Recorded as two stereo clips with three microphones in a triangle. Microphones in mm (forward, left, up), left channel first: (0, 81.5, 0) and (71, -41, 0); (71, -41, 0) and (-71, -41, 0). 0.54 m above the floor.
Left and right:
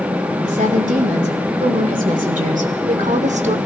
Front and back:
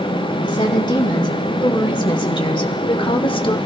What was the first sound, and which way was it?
A woman speaking, 55° right.